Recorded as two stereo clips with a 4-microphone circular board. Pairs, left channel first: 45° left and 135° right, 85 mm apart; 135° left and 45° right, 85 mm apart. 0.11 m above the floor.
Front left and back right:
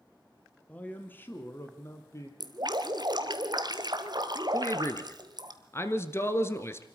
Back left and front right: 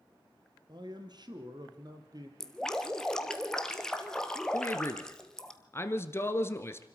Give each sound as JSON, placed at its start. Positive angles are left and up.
{"t": 0.7, "sound": "a man speaking", "azimuth_deg": -25, "distance_m": 2.0}
{"t": 2.4, "sound": "dripping", "azimuth_deg": -145, "distance_m": 1.4}
{"t": 4.5, "sound": "a man speaking", "azimuth_deg": 90, "distance_m": 1.5}